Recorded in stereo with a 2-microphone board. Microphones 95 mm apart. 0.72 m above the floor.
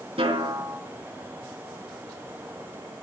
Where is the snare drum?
80° right, 5 m.